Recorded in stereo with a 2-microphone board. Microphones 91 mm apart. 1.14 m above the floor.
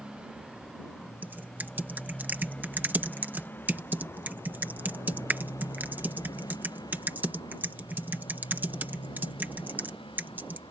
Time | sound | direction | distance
0.0 | a motorcycle | 10° right (ahead or behind) | ?
1.2 | typing on a keyboard | 20° right (ahead or behind) | ?